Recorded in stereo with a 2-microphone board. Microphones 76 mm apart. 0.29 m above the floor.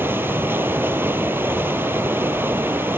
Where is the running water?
30° right (ahead or behind), 1.0 m.